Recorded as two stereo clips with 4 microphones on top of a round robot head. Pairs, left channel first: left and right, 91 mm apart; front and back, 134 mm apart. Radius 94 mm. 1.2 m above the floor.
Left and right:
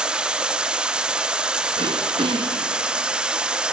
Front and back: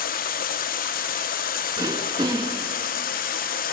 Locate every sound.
0.0 s running water: 10° right, 0.8 m
1.8 s throat clearing: 115° right, 0.6 m